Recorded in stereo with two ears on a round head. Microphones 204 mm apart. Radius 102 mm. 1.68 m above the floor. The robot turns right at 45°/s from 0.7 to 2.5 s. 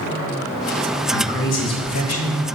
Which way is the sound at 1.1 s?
45° left.